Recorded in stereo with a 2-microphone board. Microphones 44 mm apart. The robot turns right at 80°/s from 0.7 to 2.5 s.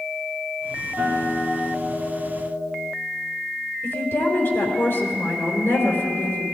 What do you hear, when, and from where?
1.0 s a guitar: 30° right, 4 m; by 2.9 s 95° left, 4 m
3.8 s a woman speaking: 65° left (ahead or behind), 3.5 m